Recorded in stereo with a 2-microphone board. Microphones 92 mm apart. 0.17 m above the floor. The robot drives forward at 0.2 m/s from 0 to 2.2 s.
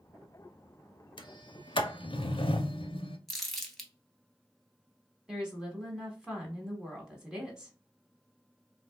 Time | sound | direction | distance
1.2 | a sliding door | 65° left (ahead or behind) | 0.6 m
3.3 | crumpling | 5° left (ahead or behind) | 0.9 m
5.3 | a woman speaking | 10° right (ahead or behind) | 1.1 m